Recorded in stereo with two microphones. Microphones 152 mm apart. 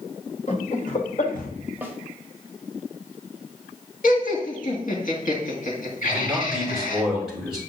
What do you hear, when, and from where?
0.5 s laughter: 50° left (ahead or behind), 1.6 m; by 1.5 s 60° left (ahead or behind), 1.7 m
1.8 s a snare drum: 10° right (ahead or behind), 1.4 m
4.0 s laughter: 60° left (ahead or behind), 2 m
6.0 s a man speaking: centre (ahead or behind), 6 m